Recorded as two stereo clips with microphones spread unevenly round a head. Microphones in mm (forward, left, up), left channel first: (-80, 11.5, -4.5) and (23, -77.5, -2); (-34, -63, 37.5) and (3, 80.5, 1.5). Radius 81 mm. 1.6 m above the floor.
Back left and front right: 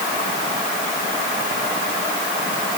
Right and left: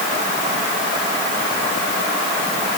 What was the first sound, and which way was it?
Only background noise.